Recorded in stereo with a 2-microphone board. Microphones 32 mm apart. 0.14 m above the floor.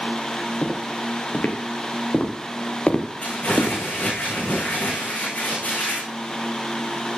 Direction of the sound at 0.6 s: 50° left (ahead or behind).